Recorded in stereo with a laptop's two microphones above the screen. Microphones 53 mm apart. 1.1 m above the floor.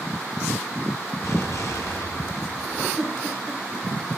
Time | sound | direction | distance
1.2 | an explosion | 65° left (ahead or behind) | 3 m
3.0 | a giggle | 15° left (ahead or behind) | 7.5 m